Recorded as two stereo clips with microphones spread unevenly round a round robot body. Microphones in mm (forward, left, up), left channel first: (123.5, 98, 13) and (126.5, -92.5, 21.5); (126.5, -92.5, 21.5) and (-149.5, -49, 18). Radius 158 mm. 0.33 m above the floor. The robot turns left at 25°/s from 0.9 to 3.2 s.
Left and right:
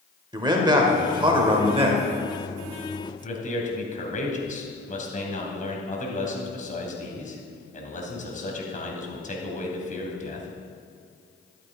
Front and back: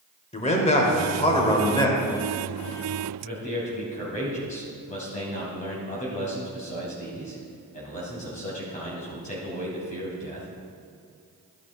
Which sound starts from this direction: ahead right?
A man speaking, at 0.3 s.